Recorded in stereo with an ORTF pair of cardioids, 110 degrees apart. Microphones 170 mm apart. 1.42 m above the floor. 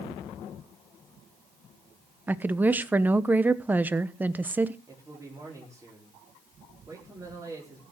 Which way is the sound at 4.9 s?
20° right.